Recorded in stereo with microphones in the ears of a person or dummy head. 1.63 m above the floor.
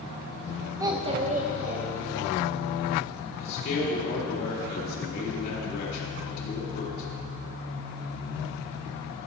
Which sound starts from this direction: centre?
A child speaking, at 0.8 s.